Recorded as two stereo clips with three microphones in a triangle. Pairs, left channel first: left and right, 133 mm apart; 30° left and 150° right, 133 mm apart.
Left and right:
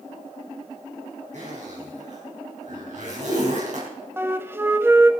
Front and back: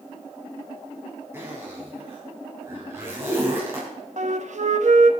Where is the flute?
160° right, 0.6 m.